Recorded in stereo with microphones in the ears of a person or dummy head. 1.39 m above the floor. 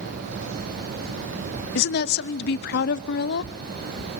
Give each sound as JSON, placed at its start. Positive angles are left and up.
{"t": 1.8, "sound": "a woman speaking", "side_deg": 60, "distance_m": 0.6}